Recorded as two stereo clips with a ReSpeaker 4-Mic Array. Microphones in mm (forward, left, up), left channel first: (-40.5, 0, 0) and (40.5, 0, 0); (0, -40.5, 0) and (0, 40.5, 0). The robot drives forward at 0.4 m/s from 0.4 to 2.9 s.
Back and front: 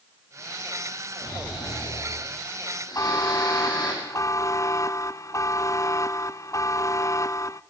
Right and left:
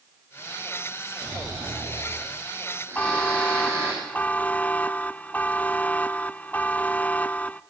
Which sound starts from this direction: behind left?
Snoring, at 1.2 s.